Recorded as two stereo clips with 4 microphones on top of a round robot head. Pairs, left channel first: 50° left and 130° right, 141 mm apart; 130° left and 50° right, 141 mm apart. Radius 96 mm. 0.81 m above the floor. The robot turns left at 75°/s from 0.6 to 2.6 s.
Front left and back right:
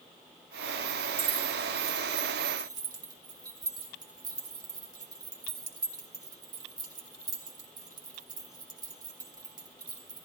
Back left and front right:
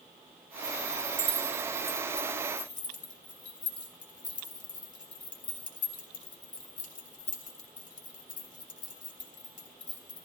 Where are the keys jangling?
85° right, 2.5 m; by 10.2 s 165° left, 2.5 m.